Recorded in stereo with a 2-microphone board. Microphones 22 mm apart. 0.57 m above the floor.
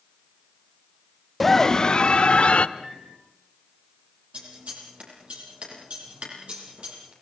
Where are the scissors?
60° right (ahead or behind), 7 m.